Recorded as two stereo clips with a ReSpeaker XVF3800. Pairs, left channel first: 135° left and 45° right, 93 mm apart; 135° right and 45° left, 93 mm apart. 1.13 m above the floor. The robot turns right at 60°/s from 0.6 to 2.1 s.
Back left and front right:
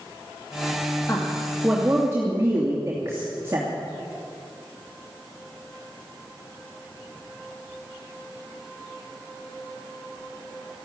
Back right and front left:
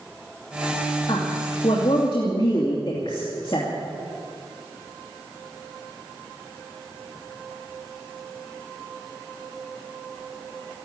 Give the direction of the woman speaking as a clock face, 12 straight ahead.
6 o'clock.